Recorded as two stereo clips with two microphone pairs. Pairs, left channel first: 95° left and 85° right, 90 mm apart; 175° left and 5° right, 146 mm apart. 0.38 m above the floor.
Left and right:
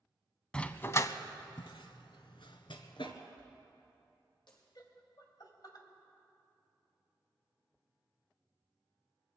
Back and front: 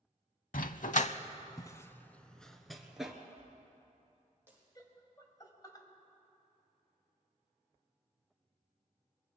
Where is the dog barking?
170° left, 0.6 m; by 3.1 s 80° left, 1.4 m.